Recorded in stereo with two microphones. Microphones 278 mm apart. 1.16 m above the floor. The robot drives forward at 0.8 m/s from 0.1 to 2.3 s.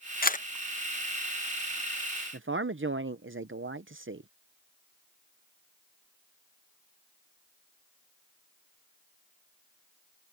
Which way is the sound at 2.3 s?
45° right (ahead or behind).